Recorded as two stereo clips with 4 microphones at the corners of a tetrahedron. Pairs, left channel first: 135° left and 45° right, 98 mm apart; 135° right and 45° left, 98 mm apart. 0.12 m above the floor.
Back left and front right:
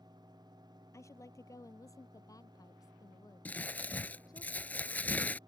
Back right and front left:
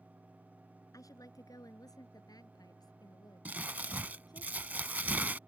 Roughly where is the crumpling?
Left.